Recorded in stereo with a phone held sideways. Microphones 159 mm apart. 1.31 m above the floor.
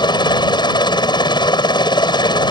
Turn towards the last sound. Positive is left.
turn(degrees=30)  # may be behind; listen again after turning